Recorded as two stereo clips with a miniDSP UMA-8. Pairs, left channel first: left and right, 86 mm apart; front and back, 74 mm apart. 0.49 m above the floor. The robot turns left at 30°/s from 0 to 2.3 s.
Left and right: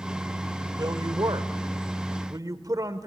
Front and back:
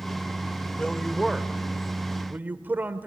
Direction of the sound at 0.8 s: 75° right.